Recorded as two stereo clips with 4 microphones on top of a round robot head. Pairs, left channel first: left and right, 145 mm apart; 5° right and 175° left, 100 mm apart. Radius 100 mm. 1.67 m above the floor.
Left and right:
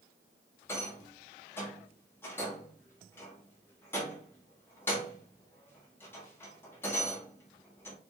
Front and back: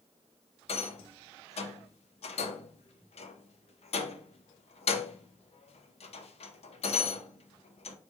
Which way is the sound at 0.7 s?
10° left.